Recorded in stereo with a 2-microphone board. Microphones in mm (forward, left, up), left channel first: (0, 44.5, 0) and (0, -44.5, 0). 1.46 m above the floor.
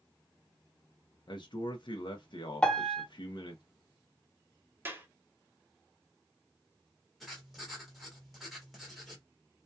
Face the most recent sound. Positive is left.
turn(degrees=0)  # may be behind; listen again after turning